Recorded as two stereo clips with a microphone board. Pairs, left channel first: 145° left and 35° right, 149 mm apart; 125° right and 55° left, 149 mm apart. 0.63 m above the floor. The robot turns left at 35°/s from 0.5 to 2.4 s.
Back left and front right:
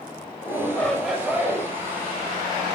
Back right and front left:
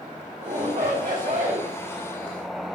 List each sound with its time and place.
0.4 s a shout: 75° left, 3.5 m; by 1.7 s 35° left, 3.5 m